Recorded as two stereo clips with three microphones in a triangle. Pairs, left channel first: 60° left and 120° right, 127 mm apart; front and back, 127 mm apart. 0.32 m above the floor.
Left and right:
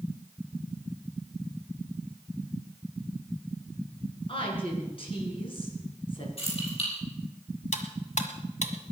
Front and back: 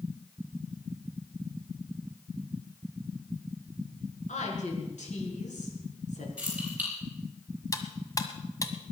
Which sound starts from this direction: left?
Keys jangling, at 6.4 s.